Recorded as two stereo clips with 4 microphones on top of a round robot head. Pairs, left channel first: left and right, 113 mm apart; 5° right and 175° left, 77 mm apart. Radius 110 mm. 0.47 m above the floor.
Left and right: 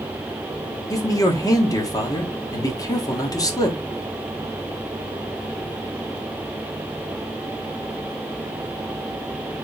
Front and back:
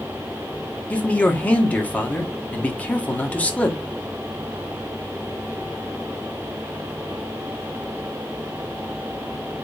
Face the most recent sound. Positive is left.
turn(degrees=55)